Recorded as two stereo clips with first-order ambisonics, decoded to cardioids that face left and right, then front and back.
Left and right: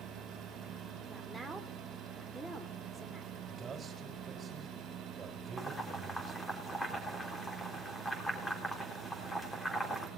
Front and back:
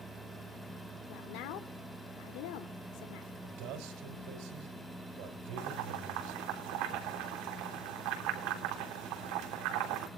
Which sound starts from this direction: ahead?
A woman speaking, at 1.1 s.